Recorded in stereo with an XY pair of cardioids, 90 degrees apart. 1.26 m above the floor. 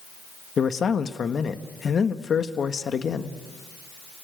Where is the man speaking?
50° left, 1.4 m.